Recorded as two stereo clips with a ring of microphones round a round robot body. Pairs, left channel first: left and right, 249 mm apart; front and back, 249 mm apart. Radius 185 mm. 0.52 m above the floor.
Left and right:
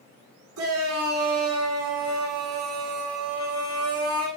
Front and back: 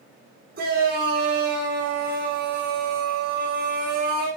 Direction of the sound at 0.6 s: 120° right.